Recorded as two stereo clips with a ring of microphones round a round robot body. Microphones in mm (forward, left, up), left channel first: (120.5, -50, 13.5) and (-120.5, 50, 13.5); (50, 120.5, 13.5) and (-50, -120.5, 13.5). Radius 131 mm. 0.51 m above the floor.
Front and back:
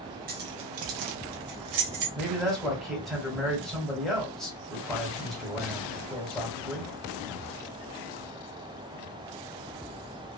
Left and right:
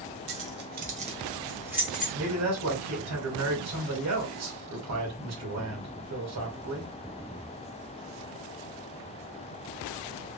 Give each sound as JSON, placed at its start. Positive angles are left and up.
{"t": 0.3, "sound": "keys jangling", "azimuth_deg": -145, "distance_m": 1.0}
{"t": 2.1, "sound": "a man speaking", "azimuth_deg": -110, "distance_m": 2.0}